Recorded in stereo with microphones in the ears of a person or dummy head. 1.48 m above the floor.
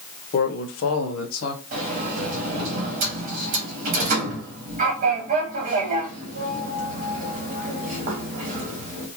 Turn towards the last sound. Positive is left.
turn(degrees=-50)  # may be behind; listen again after turning